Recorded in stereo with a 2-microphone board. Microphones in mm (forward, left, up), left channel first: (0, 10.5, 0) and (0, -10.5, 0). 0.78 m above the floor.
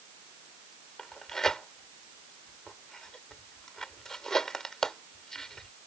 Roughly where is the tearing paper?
Left.